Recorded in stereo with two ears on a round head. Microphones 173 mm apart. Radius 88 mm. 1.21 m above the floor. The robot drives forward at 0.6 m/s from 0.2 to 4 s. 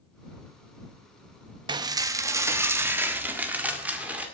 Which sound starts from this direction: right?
Dishes clattering, at 1.7 s.